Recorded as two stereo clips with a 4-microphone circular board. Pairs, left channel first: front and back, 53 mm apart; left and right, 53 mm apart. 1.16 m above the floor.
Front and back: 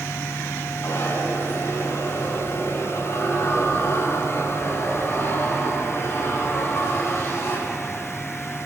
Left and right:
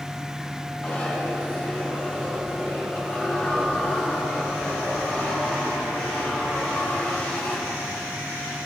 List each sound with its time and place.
0.8 s a zipper: 30° left, 6.5 m